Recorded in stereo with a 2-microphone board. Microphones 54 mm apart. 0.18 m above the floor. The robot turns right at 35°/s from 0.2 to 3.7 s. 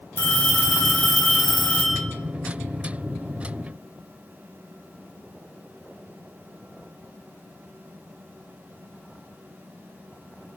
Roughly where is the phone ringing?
Ahead left.